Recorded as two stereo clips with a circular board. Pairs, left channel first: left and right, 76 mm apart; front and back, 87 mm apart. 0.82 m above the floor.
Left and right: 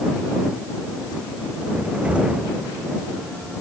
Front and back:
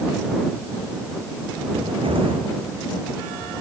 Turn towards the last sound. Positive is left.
turn(degrees=-165)